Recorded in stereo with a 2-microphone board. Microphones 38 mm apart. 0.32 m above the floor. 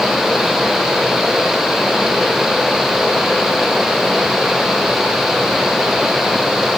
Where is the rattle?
No rattle in this recording.